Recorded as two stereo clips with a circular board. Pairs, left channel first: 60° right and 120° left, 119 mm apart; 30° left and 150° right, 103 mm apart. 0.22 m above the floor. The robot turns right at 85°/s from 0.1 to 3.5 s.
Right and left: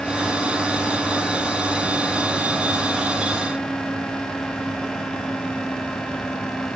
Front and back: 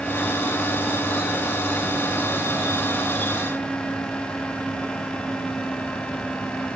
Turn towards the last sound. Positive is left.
No sound to turn to.